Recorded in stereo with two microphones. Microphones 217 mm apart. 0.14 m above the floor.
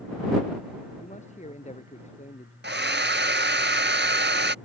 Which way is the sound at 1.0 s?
30° left (ahead or behind).